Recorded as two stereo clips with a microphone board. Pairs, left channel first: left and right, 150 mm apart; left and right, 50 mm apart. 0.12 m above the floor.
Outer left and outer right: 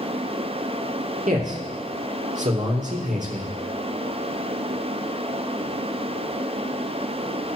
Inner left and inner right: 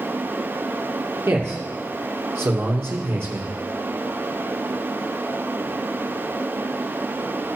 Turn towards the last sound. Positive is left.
turn(degrees=-55)  # may be behind; listen again after turning